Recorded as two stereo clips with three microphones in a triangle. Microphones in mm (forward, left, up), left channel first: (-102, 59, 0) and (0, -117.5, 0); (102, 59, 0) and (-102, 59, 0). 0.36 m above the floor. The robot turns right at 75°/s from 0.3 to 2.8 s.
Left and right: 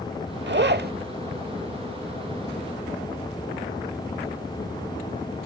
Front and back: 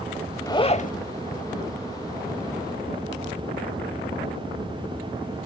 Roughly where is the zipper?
Right.